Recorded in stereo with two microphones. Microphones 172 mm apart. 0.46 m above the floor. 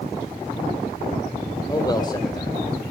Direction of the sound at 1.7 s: 20° left (ahead or behind).